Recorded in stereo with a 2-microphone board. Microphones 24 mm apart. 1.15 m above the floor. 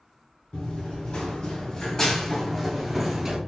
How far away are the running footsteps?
About 1.8 m.